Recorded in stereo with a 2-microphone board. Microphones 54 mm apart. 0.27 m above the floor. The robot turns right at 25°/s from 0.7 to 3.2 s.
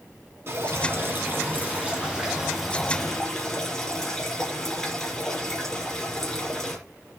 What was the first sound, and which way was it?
Dripping, 55° right.